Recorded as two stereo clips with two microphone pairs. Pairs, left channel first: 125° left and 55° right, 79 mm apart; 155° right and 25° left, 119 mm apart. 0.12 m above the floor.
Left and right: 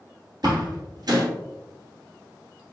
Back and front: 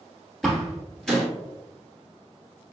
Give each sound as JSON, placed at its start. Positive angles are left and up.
{"t": 0.4, "sound": "a door slam", "azimuth_deg": -70, "distance_m": 1.3}